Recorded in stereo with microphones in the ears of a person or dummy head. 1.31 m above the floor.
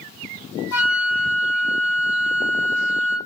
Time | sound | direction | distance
0.7 | a flute | 10° left (ahead or behind) | 1.4 m